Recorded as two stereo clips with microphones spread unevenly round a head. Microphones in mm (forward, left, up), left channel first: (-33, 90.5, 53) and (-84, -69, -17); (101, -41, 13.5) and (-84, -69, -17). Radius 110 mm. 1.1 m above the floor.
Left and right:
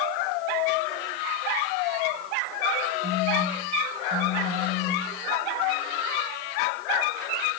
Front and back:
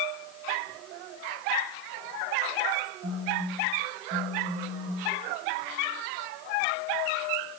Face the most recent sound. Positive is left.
turn(degrees=-135)